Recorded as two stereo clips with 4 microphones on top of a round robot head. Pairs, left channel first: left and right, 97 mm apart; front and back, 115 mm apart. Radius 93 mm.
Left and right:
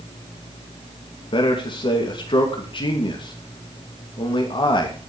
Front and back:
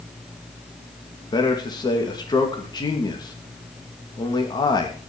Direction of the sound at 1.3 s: 55° left.